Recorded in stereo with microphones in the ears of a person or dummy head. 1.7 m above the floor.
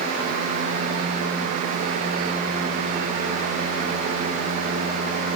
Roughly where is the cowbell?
I don't hear a cowbell.